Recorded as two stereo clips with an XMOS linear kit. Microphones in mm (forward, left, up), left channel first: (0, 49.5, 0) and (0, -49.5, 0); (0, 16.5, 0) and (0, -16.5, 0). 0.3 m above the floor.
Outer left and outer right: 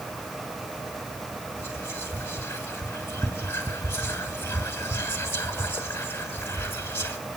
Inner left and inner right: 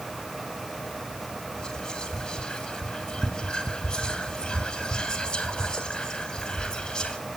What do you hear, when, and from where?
1.6 s whispering: 20° left (ahead or behind), 1.9 m